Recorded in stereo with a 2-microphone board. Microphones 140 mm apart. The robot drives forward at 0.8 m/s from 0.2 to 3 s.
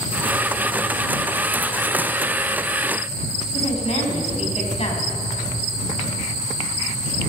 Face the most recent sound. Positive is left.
turn(degrees=50)  # may be behind; listen again after turning